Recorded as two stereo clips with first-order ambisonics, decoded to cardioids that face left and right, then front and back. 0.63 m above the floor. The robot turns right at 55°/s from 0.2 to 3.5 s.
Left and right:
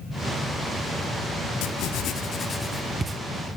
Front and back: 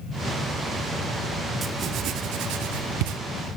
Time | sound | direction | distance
1.6 | writing | 110° left | 0.6 m